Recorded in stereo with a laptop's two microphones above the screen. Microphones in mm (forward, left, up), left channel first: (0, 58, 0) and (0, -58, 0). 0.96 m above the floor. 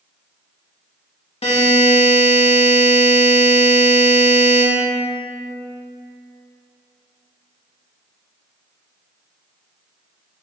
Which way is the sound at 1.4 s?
60° left (ahead or behind).